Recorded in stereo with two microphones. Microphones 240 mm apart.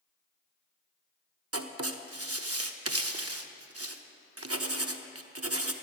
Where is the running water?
I don't hear running water.